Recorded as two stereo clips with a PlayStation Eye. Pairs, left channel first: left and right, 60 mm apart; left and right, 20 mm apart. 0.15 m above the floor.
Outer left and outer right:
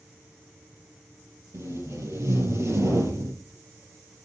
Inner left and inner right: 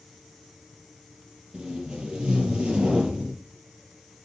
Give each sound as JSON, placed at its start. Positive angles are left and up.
{"t": 1.5, "sound": "tape being pulled", "side_deg": -55, "distance_m": 4.0}